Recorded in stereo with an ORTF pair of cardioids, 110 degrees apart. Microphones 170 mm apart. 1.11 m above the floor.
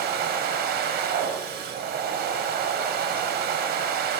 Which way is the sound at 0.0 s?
70° right.